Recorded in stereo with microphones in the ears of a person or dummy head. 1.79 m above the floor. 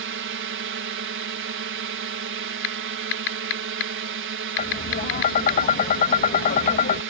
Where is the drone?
60° right (ahead or behind).